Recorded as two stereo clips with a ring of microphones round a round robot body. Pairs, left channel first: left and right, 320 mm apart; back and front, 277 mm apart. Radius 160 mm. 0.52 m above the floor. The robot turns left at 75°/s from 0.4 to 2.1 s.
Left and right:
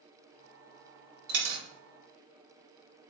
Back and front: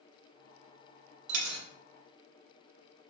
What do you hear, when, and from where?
1.3 s a dropped coin: 25° right, 0.6 m; by 1.6 s 55° right, 0.6 m